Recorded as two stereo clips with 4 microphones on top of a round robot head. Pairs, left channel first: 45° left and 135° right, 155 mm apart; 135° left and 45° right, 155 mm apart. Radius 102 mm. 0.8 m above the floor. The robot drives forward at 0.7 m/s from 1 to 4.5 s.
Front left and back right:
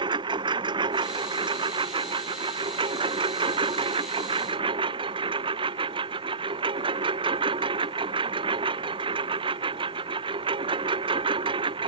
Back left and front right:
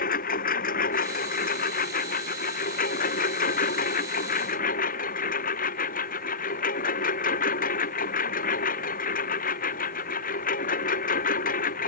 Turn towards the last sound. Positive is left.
turn(degrees=165)